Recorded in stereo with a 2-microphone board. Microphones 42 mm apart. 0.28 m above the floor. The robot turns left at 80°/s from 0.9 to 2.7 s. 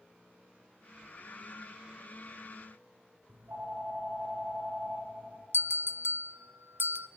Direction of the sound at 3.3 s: 55° right (ahead or behind).